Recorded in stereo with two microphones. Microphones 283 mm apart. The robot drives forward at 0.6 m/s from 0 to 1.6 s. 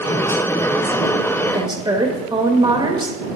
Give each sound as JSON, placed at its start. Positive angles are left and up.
{"t": 1.5, "sound": "a woman speaking", "side_deg": -15, "distance_m": 0.7}